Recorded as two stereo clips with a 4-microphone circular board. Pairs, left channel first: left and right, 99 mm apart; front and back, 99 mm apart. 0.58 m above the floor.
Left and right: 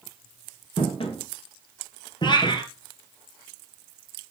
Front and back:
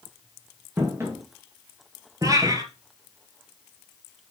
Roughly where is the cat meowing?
Behind left.